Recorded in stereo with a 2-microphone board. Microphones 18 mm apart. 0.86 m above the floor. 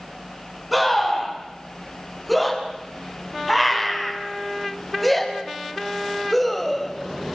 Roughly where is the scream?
Centre.